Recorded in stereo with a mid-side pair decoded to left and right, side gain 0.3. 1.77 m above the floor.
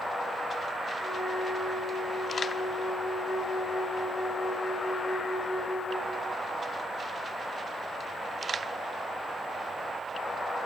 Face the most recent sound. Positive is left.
turn(degrees=30)